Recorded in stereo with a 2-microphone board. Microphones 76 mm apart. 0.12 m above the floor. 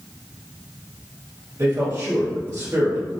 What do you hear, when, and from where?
1.6 s a man speaking: 40° right (ahead or behind), 1.7 m